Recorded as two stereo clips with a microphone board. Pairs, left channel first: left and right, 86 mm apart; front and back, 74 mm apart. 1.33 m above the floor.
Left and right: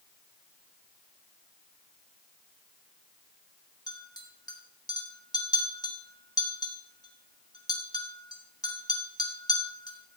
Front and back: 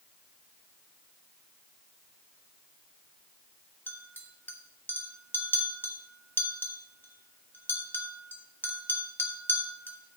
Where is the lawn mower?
No lawn mower in this recording.